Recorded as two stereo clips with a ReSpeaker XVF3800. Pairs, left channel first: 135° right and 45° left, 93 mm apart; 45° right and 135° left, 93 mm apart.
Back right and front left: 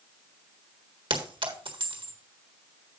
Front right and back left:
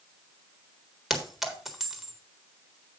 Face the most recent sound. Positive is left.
turn(degrees=50)